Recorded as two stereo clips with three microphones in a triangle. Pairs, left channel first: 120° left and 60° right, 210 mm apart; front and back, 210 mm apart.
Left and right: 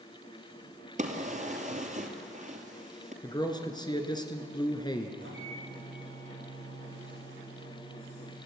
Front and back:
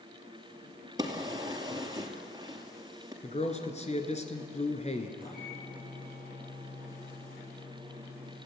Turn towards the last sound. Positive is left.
turn(degrees=-45)